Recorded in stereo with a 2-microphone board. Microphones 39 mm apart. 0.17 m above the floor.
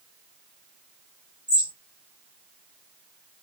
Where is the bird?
20° right (ahead or behind), 1.5 m.